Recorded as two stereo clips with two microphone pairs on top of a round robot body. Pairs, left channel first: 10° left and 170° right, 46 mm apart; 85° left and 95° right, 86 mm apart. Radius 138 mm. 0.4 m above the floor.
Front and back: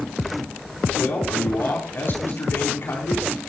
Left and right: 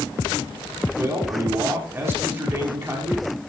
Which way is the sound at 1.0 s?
30° right.